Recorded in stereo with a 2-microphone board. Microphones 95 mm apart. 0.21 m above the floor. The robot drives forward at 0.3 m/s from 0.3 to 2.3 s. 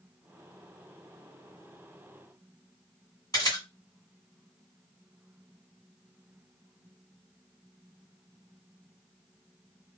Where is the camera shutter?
35° left (ahead or behind), 2.0 m.